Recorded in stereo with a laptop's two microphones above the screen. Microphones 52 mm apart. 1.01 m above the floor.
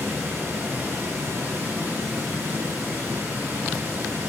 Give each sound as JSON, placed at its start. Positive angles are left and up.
{"t": 0.0, "sound": "running water", "side_deg": -75, "distance_m": 4.5}